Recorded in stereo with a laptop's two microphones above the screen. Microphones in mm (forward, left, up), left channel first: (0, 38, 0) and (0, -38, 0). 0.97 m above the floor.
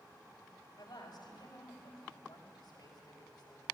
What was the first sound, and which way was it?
A woman speaking, 75° left (ahead or behind).